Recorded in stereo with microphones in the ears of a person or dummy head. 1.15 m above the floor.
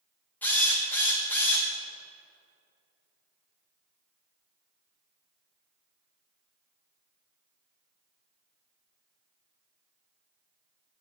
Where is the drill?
15° left (ahead or behind), 1.0 m.